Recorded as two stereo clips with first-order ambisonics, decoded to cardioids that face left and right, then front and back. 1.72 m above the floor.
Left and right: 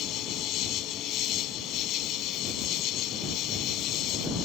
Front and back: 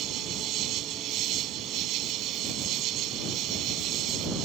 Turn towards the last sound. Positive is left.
turn(degrees=135)